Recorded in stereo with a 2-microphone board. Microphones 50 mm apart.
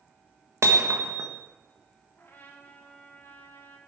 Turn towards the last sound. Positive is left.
turn(degrees=45)  # may be behind; listen again after turning